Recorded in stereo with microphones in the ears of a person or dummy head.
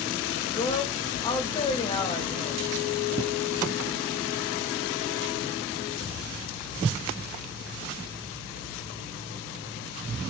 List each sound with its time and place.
0.6 s a woman speaking: 25° left (ahead or behind), 1.2 m